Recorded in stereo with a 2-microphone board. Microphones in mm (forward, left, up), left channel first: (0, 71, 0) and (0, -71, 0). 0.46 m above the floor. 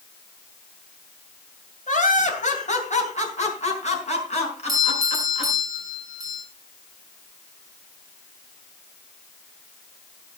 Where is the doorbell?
25° right (ahead or behind), 6.5 m.